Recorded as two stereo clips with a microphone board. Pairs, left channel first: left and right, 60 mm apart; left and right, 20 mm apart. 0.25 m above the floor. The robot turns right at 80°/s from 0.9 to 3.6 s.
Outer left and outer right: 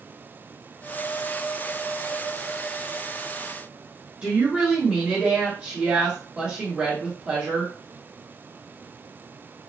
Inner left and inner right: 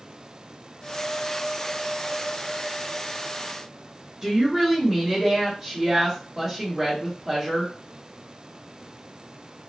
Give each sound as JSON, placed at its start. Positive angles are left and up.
{"t": 4.2, "sound": "a woman speaking", "side_deg": -20, "distance_m": 1.4}